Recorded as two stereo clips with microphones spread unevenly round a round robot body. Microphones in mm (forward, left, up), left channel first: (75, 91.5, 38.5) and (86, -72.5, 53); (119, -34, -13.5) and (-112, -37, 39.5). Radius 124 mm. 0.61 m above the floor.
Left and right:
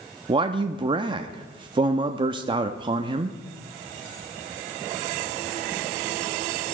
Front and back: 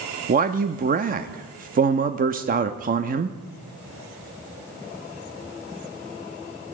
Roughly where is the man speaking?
Behind right.